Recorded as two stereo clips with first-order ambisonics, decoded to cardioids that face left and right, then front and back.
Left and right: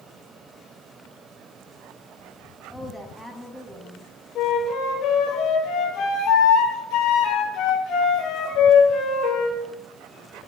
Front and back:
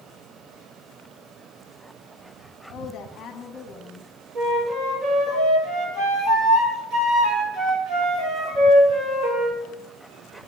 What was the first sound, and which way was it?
A woman speaking, straight ahead.